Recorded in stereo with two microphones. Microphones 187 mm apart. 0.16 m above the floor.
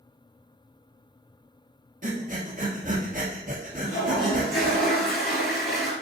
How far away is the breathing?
About 1.7 m.